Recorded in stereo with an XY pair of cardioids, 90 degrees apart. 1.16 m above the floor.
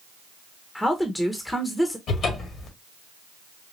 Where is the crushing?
I don't hear crushing.